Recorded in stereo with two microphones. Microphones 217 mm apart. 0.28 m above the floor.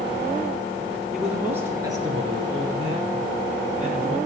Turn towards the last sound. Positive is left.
turn(degrees=-40)  # may be behind; listen again after turning